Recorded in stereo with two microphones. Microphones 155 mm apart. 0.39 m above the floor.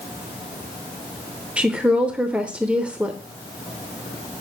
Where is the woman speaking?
10° right (ahead or behind), 0.9 m.